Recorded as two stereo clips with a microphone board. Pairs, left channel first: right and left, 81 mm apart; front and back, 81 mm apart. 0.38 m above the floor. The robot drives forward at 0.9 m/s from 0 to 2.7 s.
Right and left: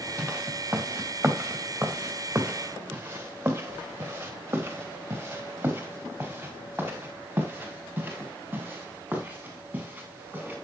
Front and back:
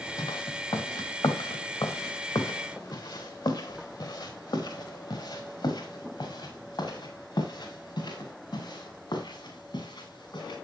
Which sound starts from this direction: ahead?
Footsteps, at 0.2 s.